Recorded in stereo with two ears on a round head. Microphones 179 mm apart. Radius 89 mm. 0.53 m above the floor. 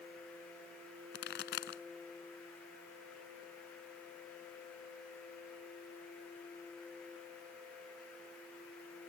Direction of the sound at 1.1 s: 60° left (ahead or behind).